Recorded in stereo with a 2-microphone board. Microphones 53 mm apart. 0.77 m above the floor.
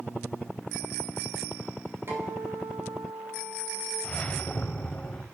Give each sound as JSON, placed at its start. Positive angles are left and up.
{"t": 2.1, "sound": "a guitar", "side_deg": -45, "distance_m": 3.0}
{"t": 4.0, "sound": "a whoosh", "side_deg": 25, "distance_m": 0.6}